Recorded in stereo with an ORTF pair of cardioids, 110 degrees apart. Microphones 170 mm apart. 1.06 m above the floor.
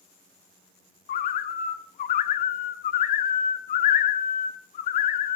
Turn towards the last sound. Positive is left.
turn(degrees=60)